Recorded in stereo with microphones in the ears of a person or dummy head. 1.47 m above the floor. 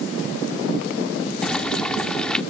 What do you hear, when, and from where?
1.4 s boiling: 5° left (ahead or behind)